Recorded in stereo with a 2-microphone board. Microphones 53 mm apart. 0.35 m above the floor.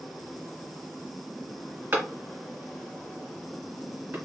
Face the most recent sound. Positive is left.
turn(degrees=-50)  # may be behind; listen again after turning